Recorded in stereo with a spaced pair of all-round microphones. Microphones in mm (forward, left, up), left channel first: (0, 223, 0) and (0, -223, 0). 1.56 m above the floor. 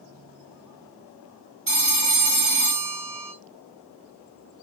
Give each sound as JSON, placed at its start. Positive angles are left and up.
{"t": 1.7, "sound": "a phone ringing", "side_deg": -55, "distance_m": 1.1}